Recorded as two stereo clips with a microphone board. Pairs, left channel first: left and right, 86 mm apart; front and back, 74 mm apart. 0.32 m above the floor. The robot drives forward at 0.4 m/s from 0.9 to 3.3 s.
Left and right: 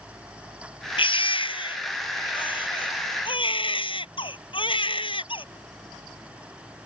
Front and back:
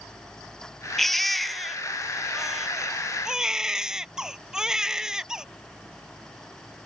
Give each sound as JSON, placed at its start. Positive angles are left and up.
{"t": 1.0, "sound": "a baby crying", "azimuth_deg": 90}